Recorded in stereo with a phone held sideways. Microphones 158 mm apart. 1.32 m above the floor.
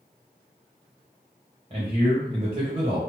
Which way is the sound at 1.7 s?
40° right (ahead or behind).